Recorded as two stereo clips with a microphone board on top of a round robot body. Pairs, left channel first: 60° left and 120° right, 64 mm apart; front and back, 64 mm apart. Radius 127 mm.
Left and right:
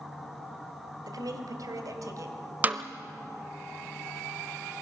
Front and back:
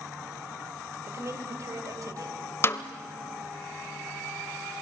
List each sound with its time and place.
1.1 s a woman speaking: 135° right, 2.5 m; by 2.4 s 155° right, 3 m
2.6 s a snare drum: 55° right, 0.7 m